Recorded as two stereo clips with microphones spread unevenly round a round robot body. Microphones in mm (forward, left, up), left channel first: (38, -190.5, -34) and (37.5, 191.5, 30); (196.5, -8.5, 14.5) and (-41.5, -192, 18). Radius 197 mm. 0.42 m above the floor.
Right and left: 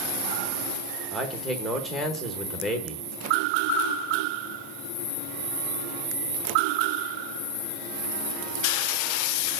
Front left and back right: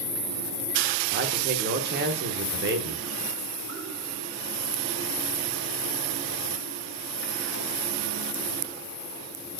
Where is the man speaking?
165° right, 1.0 m.